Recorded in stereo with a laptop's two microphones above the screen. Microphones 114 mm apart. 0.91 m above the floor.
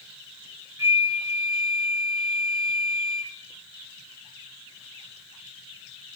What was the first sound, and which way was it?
A flute, 25° right (ahead or behind).